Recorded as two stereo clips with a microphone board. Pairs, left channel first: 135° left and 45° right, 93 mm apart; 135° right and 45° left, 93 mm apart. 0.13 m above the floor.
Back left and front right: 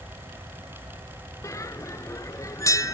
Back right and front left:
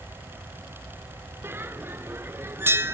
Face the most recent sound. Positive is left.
turn(degrees=100)